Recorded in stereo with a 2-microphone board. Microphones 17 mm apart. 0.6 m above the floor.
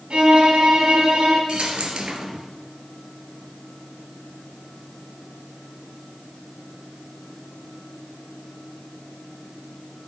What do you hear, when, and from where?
0.1 s a violin: 70° right (ahead or behind), 3.5 m
1.5 s a dropped coin: 60° right (ahead or behind), 1.9 m